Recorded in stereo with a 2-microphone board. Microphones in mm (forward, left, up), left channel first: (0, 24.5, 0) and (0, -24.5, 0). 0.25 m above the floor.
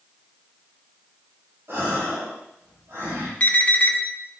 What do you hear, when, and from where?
1.7 s a gasp: 70° right (ahead or behind), 6 m
3.4 s an alarm: 35° left (ahead or behind), 2.5 m